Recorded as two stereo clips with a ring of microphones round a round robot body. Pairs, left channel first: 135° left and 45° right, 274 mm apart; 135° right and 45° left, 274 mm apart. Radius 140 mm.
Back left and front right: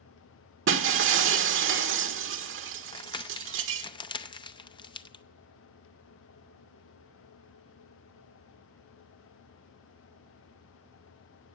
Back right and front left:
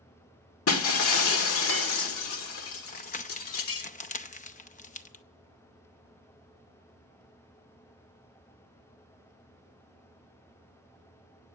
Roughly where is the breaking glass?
Right.